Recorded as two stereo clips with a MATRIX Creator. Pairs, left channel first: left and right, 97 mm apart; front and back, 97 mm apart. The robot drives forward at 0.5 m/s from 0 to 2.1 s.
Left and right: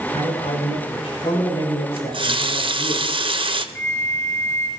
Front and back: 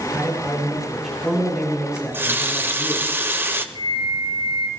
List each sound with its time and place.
0.1 s a man speaking: 90° left, 7.5 m; by 3.0 s 100° left, 8 m
2.0 s a running tap: 110° right, 1.0 m
3.8 s a flute: 155° left, 1.5 m